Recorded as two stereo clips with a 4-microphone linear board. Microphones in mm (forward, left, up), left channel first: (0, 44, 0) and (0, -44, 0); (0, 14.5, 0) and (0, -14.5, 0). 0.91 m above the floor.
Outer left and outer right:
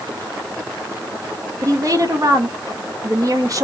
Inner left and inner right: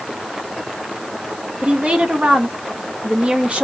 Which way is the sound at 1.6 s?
45° right (ahead or behind).